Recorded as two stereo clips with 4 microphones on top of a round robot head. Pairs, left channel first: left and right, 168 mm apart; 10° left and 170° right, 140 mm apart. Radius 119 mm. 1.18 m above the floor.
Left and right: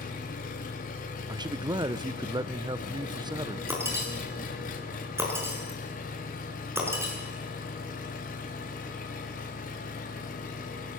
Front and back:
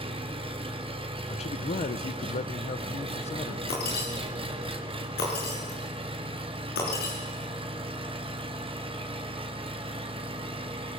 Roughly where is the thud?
No thud in this recording.